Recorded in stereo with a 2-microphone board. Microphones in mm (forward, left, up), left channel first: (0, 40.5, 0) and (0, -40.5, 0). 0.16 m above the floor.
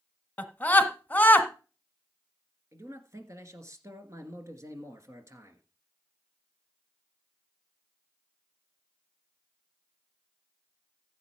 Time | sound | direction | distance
0.4 | a scream | 20° left (ahead or behind) | 1.2 m
2.7 | a man speaking | 35° right (ahead or behind) | 1.9 m